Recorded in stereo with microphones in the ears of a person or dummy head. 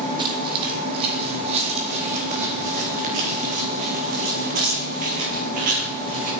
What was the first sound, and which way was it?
Footsteps, 20° right (ahead or behind).